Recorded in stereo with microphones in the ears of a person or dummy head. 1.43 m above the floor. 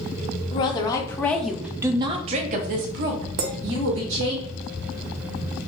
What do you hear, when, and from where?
0.5 s a woman speaking: 30° left (ahead or behind), 1.0 m; by 4.4 s 80° right, 1.6 m
3.4 s a clink: 60° right (ahead or behind), 0.8 m